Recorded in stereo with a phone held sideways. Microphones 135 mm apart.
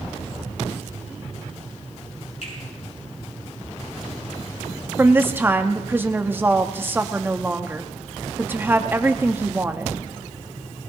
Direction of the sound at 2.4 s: 65° left (ahead or behind).